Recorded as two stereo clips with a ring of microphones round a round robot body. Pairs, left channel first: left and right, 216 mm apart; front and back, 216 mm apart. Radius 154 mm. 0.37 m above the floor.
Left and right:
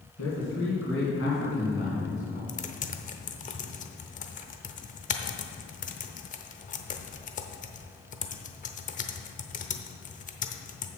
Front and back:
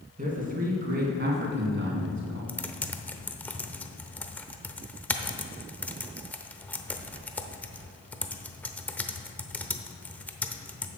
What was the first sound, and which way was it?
A man speaking, 125° left.